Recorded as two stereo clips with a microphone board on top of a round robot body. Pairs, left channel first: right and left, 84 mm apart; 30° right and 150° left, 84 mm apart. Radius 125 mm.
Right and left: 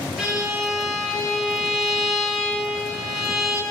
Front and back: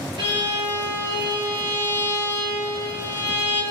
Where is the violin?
175° left, 3 m.